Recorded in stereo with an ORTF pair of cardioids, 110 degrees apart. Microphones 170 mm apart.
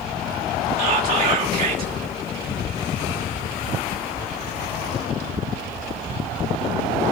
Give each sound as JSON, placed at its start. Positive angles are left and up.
{"t": 0.8, "sound": "whispering", "azimuth_deg": -55, "distance_m": 2.5}